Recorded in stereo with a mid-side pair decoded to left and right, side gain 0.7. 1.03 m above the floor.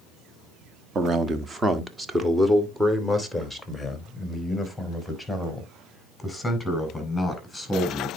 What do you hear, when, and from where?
0.9 s a man speaking: 30° right, 1.4 m; by 8.1 s 5° left, 5.5 m